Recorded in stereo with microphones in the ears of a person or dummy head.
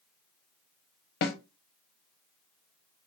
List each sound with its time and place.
1.2 s a snare drum: 45° left (ahead or behind), 0.6 m